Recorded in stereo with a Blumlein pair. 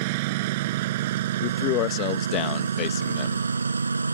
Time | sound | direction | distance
0.0 | a lawn mower | 50° right | ?
1.4 | a man speaking | 40° left | ?